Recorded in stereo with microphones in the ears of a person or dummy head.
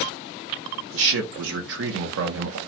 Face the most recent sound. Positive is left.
turn(degrees=-70)  # may be behind; listen again after turning